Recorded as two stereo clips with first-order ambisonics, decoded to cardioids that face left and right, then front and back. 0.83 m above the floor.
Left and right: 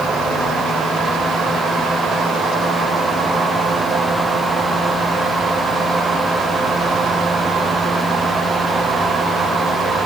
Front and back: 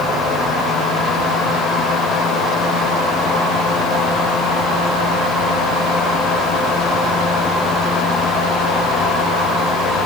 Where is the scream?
I don't hear a scream.